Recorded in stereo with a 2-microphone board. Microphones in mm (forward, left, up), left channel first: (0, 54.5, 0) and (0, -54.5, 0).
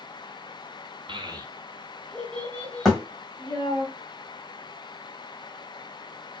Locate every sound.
1.1 s a child speaking: 50° right (ahead or behind), 0.5 m; by 3.9 s 25° left (ahead or behind), 1.7 m
2.9 s a thud: 5° left (ahead or behind), 1.9 m